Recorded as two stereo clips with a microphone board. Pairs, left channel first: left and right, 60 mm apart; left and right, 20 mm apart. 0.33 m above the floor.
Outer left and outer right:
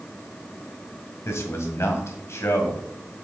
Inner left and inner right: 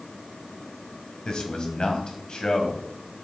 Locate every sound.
1.2 s a man speaking: 50° left (ahead or behind), 1.8 m